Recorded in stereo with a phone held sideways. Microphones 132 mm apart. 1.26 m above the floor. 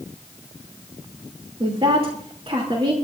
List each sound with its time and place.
1.6 s a woman speaking: 45° right (ahead or behind), 3 m